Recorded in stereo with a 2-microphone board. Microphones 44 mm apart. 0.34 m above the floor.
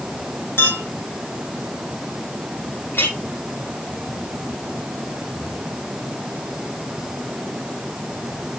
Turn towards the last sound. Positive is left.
turn(degrees=60)  # may be behind; listen again after turning